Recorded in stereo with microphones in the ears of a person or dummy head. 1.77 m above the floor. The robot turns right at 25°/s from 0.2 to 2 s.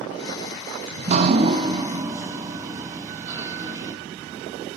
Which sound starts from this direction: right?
Dripping, at 0.9 s.